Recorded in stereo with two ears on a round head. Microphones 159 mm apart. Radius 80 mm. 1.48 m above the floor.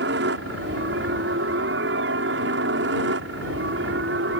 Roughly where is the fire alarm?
I don't hear a fire alarm.